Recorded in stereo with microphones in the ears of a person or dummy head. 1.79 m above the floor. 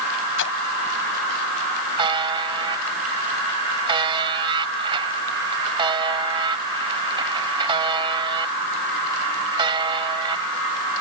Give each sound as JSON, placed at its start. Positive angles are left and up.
{"t": 0.4, "sound": "a splash", "side_deg": 75}
{"t": 2.0, "sound": "a buzzer", "side_deg": -25}